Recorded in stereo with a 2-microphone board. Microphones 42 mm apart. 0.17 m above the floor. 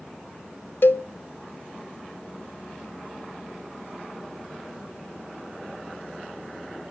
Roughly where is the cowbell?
Left.